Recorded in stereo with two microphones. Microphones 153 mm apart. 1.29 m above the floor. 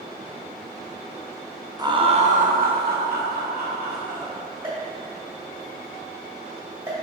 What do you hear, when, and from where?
1.8 s laughter: 25° right (ahead or behind), 0.6 m; by 4.3 s 70° right (ahead or behind), 1.4 m
4.6 s a pop: 20° right (ahead or behind), 1.9 m